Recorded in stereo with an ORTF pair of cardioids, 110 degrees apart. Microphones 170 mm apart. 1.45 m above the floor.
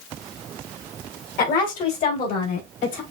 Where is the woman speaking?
60° left, 2.5 m; by 3.0 s 65° left, 4.5 m.